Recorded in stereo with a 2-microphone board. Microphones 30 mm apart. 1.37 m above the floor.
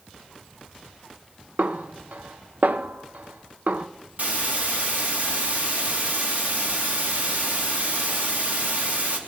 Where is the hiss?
65° right (ahead or behind), 2.5 m.